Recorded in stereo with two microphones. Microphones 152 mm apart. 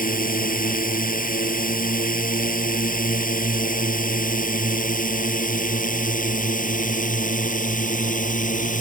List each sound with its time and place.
0.0 s a drone: 70° left (ahead or behind); by 8.8 s 60° left (ahead or behind)